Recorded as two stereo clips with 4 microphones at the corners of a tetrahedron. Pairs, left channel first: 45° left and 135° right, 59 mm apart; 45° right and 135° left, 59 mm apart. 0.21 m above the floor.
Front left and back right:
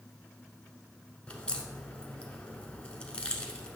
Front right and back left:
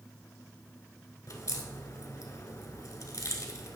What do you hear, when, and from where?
1.3 s a crack: 25° right, 1.0 m